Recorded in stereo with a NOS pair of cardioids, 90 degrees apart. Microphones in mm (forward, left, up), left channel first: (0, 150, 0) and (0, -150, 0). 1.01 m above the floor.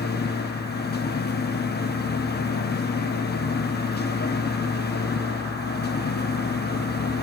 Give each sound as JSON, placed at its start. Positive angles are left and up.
{"t": 0.0, "sound": "a machine running", "azimuth_deg": 30, "distance_m": 0.8}